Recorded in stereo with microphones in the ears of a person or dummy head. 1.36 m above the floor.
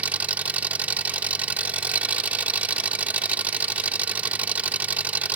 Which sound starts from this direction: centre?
An engine running, at 0.0 s.